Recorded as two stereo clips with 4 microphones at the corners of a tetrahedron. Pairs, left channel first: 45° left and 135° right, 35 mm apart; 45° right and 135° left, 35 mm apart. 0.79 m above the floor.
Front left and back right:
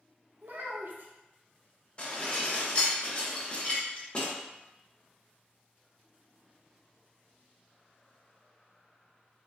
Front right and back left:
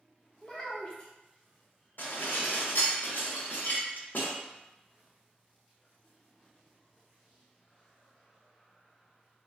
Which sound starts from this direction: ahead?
Dishes clattering, at 2.0 s.